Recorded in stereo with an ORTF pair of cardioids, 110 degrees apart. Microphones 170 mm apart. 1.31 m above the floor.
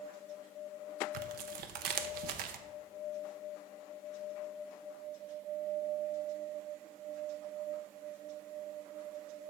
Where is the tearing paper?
70° right, 0.8 m.